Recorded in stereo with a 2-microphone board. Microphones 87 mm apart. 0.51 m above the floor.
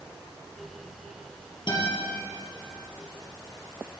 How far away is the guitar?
About 4 m.